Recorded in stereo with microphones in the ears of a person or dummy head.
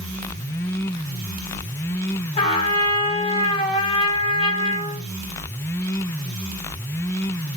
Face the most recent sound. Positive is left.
turn(degrees=35)  # may be behind; listen again after turning